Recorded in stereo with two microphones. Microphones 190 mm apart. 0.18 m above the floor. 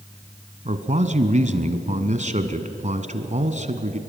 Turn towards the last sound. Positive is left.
turn(degrees=-40)  # may be behind; listen again after turning